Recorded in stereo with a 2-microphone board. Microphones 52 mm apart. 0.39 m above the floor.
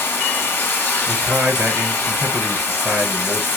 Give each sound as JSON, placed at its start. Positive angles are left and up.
{"t": 0.0, "sound": "running water", "side_deg": 45, "distance_m": 1.6}
{"t": 1.1, "sound": "a man speaking", "side_deg": -45, "distance_m": 1.6}